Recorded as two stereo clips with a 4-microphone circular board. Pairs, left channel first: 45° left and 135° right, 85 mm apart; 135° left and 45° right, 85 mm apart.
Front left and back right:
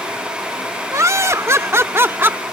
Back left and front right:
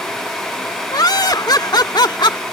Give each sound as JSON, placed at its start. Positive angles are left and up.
{"t": 0.9, "sound": "laughter", "azimuth_deg": 175}